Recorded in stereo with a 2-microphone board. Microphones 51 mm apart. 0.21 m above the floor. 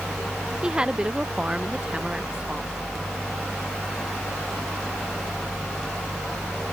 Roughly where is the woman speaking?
Centre.